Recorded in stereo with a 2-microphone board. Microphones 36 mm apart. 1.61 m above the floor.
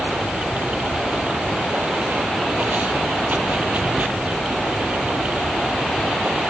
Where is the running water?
45° right (ahead or behind).